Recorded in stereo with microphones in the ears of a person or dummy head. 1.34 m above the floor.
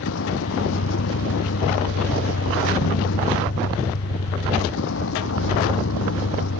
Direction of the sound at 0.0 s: 75° left (ahead or behind).